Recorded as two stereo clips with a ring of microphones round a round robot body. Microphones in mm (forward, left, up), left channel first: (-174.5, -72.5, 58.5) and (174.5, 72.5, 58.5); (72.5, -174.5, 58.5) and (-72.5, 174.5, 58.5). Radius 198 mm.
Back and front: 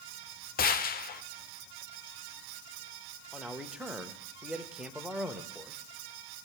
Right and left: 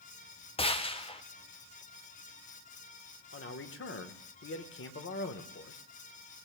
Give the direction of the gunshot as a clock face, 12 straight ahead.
4 o'clock.